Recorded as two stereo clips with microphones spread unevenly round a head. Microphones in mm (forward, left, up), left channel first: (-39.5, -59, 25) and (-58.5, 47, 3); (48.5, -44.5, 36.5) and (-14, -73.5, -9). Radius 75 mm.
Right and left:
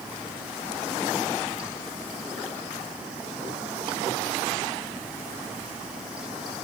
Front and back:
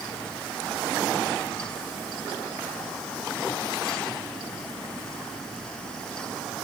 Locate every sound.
Only background noise.